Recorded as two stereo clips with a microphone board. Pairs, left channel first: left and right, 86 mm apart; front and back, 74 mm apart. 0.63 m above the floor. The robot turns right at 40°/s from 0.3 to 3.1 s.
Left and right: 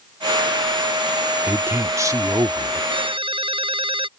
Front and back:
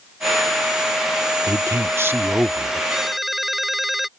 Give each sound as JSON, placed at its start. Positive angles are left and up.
{"t": 1.5, "sound": "a man speaking", "azimuth_deg": -155}
{"t": 2.9, "sound": "a ringtone", "azimuth_deg": -100}